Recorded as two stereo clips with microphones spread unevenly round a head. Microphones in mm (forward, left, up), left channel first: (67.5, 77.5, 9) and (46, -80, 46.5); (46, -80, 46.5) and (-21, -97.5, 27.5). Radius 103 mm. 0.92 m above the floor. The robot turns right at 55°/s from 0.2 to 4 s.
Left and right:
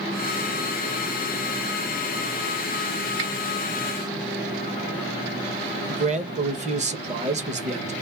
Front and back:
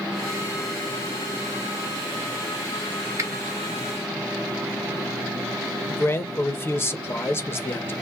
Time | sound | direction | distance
3.2 | a finger snap | 125° right | 1.1 m
5.9 | a man speaking | 50° right | 1.0 m